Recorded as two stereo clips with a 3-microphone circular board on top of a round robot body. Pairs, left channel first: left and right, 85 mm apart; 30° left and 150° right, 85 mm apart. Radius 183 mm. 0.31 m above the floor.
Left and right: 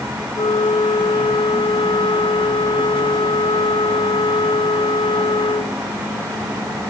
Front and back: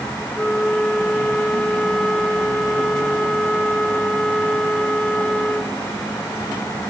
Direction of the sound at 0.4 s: 115° left.